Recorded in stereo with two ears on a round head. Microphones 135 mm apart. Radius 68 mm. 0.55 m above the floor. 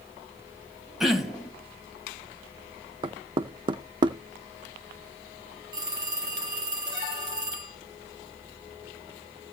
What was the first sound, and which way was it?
Throat clearing, 5° right (ahead or behind).